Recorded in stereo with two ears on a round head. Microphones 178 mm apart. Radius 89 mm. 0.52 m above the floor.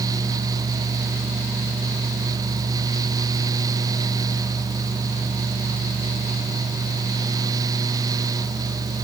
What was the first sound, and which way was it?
Only background noise.